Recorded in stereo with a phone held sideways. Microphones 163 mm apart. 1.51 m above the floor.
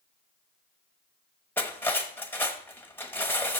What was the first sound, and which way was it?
Cutlery clinking, 10° left (ahead or behind).